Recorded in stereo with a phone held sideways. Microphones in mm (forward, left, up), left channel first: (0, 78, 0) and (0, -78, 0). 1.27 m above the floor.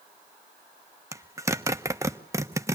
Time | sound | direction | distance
1.1 | a zipper | 20° right (ahead or behind) | 1.1 m